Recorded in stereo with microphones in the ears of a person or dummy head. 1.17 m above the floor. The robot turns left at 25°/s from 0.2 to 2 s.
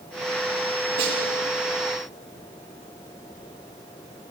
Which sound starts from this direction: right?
A snare drum, at 1.0 s.